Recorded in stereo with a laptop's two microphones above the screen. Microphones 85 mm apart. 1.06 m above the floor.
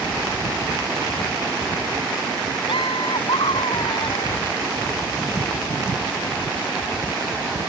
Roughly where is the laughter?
Left.